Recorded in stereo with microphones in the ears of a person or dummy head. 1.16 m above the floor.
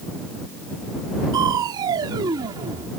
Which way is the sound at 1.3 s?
20° right (ahead or behind).